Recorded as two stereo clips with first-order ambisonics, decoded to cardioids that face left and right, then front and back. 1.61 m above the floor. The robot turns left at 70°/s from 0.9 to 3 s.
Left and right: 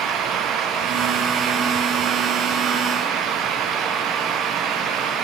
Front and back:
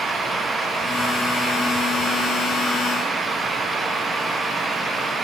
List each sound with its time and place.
Only background noise.